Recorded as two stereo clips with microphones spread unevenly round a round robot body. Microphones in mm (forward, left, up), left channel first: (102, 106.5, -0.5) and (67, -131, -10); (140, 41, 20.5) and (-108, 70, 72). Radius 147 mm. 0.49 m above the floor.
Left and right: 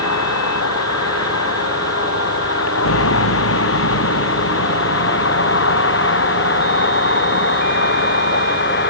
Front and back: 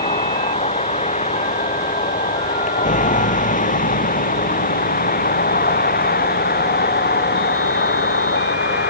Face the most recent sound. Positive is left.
turn(degrees=40)